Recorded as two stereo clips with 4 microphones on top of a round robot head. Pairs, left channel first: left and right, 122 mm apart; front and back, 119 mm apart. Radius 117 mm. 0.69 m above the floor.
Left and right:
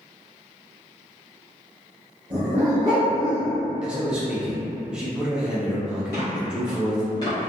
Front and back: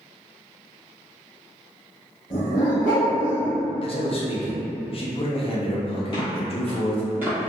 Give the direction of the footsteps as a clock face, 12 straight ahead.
11 o'clock.